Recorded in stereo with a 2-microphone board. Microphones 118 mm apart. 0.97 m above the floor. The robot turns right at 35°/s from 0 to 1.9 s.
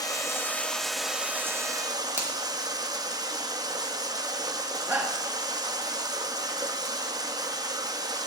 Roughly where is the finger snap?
Right.